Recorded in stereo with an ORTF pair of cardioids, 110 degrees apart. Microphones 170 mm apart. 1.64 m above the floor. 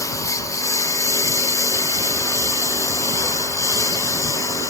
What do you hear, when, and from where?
0.0 s a lawn mower: 20° left